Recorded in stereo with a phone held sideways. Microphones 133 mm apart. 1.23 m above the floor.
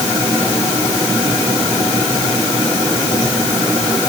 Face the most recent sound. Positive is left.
No sound to turn to.